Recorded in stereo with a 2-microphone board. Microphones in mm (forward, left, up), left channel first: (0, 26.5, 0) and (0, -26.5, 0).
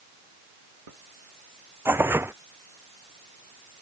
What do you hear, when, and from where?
1.9 s tearing paper: 50° right (ahead or behind)